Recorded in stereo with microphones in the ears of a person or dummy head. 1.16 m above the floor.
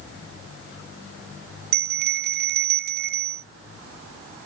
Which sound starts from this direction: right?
A bell, at 1.7 s.